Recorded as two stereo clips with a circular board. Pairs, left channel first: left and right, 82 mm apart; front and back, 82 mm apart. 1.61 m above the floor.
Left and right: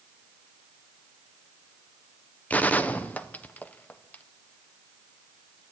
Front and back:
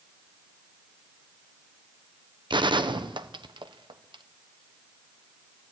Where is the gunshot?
160° left, 1.1 m.